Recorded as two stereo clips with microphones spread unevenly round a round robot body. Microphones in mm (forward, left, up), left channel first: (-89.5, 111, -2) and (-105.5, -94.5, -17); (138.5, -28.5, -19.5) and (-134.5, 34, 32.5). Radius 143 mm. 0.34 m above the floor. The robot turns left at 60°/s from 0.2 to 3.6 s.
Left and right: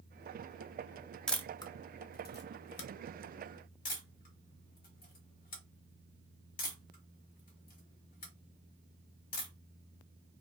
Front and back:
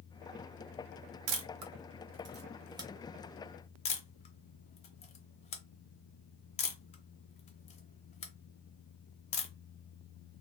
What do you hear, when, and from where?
1.3 s a camera shutter: 175° left, 0.7 m; by 9.5 s 35° left, 0.7 m